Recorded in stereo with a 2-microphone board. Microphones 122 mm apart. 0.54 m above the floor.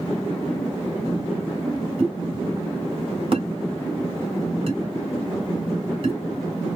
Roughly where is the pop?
Right.